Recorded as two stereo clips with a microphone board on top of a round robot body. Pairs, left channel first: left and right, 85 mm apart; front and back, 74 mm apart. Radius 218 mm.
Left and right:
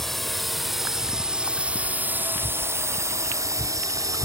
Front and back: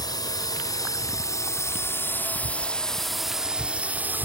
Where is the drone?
Straight ahead; by 4.2 s 125° right.